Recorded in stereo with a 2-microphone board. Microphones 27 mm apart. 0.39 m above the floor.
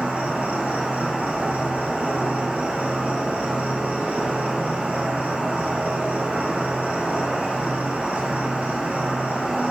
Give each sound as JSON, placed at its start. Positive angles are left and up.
{"t": 0.0, "sound": "an insect", "side_deg": -85, "distance_m": 2.0}